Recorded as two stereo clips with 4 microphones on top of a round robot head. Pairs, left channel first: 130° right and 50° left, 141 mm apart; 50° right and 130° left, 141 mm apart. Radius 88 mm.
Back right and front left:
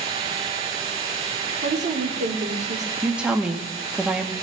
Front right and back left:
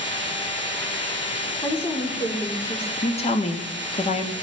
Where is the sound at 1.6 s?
20° left, 1.8 m.